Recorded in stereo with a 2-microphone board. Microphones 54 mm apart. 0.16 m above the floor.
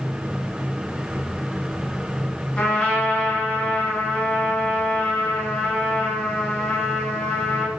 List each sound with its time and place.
2.6 s a trumpet: 15° left (ahead or behind), 1.5 m